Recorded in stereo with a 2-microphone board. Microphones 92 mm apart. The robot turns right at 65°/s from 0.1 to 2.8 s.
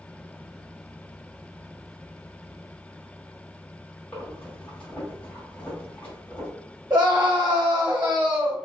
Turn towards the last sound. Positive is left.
turn(degrees=-25)  # may be behind; listen again after turning